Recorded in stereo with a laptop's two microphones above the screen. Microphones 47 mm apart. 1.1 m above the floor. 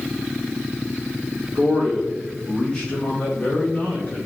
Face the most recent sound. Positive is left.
turn(degrees=35)  # may be behind; listen again after turning